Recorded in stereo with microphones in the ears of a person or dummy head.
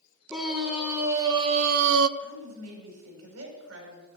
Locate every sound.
0.3 s a scream: centre (ahead or behind), 2 m; by 2.1 s 75° right (ahead or behind), 0.7 m
2.2 s a woman speaking: 80° right, 5.5 m